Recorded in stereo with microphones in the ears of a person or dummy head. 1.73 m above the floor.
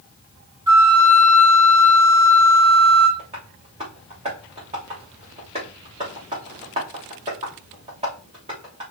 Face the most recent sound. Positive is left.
turn(degrees=-25)  # may be behind; listen again after turning